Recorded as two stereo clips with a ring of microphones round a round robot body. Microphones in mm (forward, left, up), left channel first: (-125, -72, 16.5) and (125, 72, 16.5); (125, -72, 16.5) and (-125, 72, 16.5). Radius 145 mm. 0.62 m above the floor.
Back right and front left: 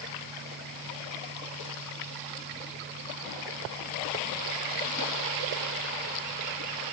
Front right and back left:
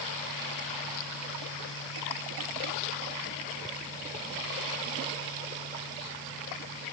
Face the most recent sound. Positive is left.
No sound to turn to.